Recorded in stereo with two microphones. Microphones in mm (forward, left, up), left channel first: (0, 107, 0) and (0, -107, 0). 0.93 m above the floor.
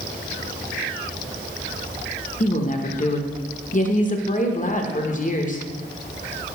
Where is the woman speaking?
35° left (ahead or behind), 0.7 m.